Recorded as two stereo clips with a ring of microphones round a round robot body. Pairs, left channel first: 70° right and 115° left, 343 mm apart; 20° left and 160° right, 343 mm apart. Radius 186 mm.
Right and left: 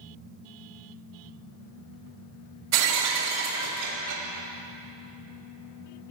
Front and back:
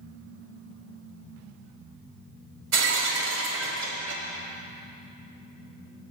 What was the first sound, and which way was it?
Breaking glass, 160° left.